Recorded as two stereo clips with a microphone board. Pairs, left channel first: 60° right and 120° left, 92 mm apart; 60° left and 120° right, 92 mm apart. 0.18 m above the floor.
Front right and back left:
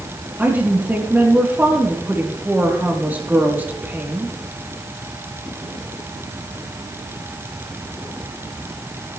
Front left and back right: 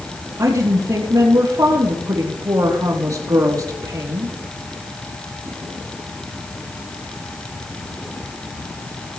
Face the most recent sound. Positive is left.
turn(degrees=-170)